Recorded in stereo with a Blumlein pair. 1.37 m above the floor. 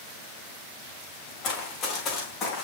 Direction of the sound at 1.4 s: 30° left.